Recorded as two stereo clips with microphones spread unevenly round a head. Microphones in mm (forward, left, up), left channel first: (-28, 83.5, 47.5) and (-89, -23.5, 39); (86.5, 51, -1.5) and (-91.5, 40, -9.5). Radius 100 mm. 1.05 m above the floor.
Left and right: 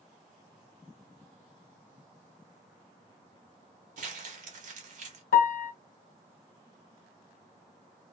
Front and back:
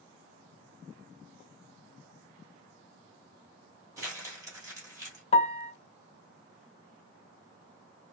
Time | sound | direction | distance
4.0 | crumpling | 100° right | 1.2 m
5.3 | a piano | 60° left | 0.6 m